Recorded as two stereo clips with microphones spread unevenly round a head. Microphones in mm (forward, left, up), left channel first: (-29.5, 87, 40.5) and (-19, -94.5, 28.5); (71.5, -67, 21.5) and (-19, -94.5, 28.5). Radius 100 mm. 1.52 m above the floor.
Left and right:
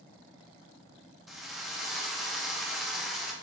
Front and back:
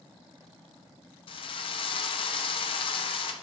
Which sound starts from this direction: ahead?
A drill, at 1.3 s.